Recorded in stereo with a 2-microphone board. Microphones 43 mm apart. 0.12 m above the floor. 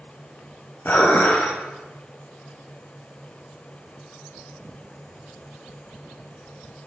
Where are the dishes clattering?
50° left (ahead or behind), 1.7 m.